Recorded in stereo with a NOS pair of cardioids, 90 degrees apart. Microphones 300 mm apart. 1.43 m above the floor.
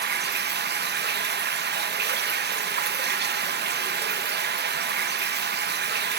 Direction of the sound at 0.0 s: 35° right.